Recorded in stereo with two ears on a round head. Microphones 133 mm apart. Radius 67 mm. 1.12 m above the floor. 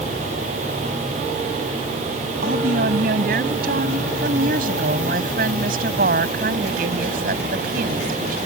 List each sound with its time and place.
2.4 s a woman speaking: 70° right (ahead or behind)
4.2 s a woman speaking: 65° right (ahead or behind)